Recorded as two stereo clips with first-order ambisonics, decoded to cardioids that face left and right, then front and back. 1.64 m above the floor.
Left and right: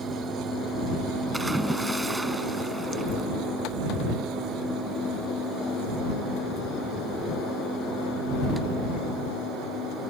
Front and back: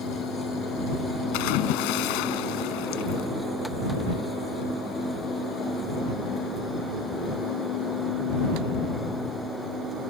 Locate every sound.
1.3 s a splash: 5° right